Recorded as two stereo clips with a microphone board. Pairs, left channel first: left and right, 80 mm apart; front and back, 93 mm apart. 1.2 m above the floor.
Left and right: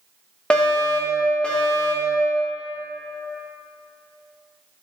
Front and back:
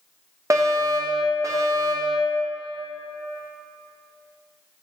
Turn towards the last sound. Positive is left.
turn(degrees=160)